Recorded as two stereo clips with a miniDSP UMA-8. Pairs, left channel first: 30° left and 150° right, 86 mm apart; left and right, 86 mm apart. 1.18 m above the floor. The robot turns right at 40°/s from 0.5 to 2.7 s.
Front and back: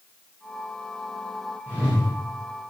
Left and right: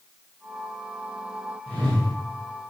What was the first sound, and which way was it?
A whoosh, 80° right.